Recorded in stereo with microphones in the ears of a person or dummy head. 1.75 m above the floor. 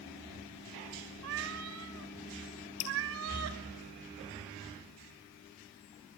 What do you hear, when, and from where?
1.2 s a cat meowing: 65° right (ahead or behind), 3 m
2.8 s dripping: 35° left (ahead or behind), 3 m